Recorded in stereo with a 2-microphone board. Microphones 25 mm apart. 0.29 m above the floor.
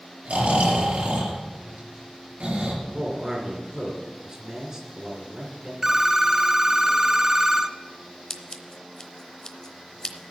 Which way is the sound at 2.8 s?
35° right (ahead or behind).